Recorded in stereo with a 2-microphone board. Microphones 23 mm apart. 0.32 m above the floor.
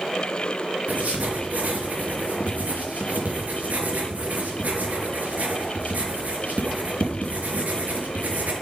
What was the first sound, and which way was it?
Writing, 80° right.